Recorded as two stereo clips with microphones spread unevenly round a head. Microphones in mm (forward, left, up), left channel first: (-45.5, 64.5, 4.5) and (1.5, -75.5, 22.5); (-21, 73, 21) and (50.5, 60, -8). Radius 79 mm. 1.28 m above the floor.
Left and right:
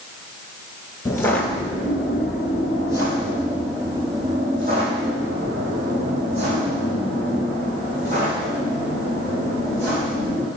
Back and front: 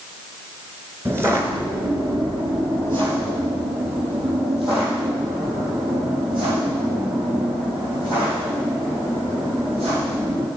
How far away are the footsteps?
About 1.3 m.